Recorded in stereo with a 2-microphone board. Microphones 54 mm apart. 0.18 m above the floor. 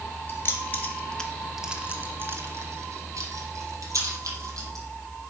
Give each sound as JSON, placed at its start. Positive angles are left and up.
{"t": 0.3, "sound": "keys jangling", "side_deg": 40, "distance_m": 2.0}